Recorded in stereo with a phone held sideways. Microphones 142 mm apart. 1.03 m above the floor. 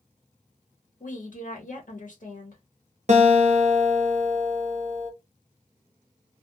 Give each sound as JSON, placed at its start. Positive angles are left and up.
{"t": 1.0, "sound": "a woman speaking", "side_deg": 70, "distance_m": 1.4}
{"t": 3.1, "sound": "a guitar", "side_deg": -55, "distance_m": 0.9}